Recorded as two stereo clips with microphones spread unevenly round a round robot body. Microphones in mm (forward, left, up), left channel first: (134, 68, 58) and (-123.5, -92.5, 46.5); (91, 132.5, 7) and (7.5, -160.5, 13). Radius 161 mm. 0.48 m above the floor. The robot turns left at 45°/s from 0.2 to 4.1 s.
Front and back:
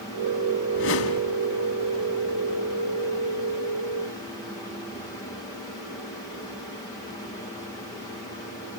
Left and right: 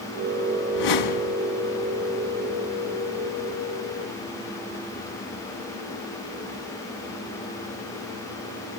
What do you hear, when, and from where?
0.7 s a whoosh: 90° left, 1.8 m; by 1.4 s 60° left, 1.8 m